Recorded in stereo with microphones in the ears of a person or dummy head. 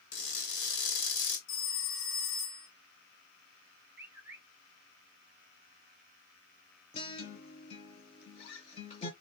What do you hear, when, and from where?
0.1 s crushing: 60° left (ahead or behind), 2 m
1.5 s a phone ringing: 60° left (ahead or behind), 1.4 m
4.0 s a bird: 10° right (ahead or behind), 1.0 m
6.9 s a guitar: 35° left (ahead or behind), 1.1 m